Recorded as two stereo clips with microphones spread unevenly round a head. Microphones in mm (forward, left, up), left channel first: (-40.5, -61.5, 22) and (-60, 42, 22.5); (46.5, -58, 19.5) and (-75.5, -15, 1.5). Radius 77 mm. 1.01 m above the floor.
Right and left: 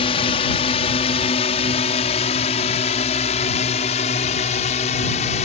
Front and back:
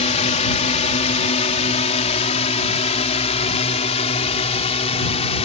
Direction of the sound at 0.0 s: 45° right.